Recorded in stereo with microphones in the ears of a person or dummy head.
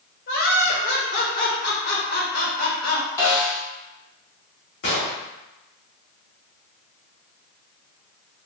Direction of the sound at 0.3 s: 55° left (ahead or behind).